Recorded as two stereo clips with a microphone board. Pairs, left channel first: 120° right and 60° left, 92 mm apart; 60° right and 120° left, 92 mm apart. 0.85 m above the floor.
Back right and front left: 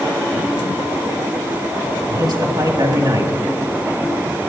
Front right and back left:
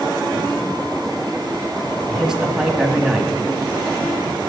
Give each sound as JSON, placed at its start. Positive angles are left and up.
{"t": 2.1, "sound": "a man speaking", "azimuth_deg": 35, "distance_m": 1.5}